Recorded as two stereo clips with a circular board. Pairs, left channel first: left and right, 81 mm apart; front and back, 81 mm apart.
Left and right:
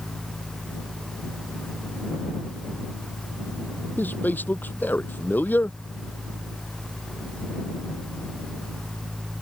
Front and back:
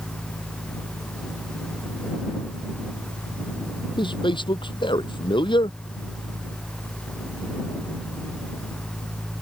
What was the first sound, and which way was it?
A man speaking, 20° left.